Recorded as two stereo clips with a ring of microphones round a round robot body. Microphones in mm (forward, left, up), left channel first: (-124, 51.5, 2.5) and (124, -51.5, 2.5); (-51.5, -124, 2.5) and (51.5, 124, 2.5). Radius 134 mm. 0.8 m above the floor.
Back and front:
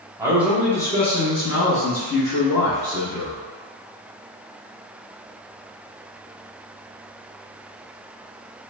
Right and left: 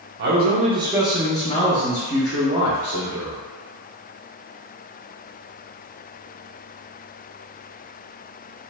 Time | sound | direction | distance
0.2 | a man speaking | 50° left | 0.8 m